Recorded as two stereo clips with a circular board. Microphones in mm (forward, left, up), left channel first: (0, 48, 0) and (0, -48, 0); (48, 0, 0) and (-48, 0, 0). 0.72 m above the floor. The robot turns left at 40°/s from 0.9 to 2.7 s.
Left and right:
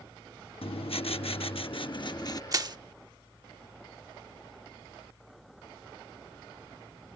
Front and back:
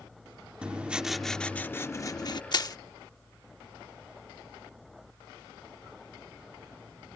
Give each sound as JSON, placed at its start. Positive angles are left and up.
{"t": 0.6, "sound": "writing", "azimuth_deg": 100}
{"t": 2.5, "sound": "crushing", "azimuth_deg": -40}